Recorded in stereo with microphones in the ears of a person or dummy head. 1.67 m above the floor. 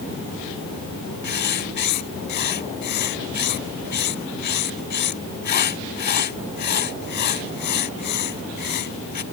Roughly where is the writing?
Left.